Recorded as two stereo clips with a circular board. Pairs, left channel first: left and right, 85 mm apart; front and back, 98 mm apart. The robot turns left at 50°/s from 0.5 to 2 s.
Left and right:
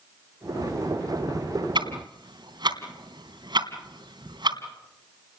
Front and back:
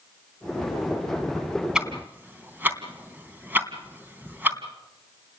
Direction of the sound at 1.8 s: 100° right.